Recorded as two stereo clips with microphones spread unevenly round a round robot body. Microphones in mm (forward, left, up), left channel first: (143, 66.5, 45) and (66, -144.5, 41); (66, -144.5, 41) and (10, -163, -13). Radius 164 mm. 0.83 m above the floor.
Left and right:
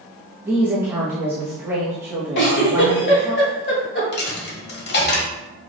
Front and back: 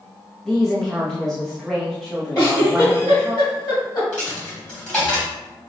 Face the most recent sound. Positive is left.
turn(degrees=35)